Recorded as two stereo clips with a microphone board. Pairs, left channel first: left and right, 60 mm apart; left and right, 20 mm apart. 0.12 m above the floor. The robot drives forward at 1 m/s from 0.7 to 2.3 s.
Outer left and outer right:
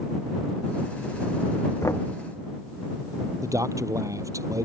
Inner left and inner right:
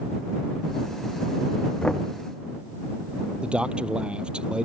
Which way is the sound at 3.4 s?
65° right (ahead or behind).